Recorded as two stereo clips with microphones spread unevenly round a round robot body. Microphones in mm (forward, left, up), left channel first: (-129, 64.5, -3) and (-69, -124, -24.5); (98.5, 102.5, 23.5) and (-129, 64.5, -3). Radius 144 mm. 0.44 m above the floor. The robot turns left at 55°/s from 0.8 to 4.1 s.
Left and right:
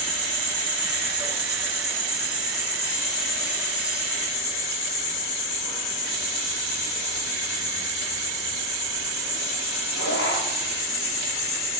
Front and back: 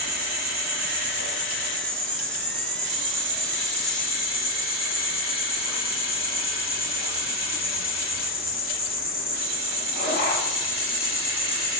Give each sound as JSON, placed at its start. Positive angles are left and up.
{"t": 0.0, "sound": "an insect", "azimuth_deg": -120, "distance_m": 7.5}